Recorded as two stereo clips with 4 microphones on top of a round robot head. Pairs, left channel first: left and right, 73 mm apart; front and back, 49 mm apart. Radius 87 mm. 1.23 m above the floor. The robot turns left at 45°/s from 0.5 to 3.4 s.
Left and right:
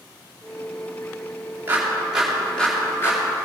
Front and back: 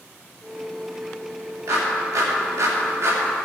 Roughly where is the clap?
Behind right.